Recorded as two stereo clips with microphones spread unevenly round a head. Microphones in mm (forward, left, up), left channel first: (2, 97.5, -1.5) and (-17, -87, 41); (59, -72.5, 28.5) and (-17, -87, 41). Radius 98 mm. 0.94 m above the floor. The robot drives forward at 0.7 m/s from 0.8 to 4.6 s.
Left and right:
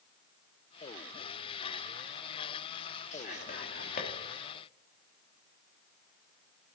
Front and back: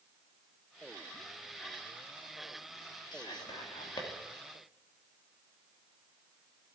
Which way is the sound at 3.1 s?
35° left.